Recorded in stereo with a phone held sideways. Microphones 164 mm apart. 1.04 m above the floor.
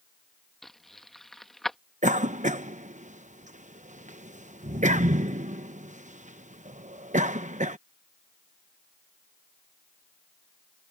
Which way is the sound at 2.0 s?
45° right (ahead or behind).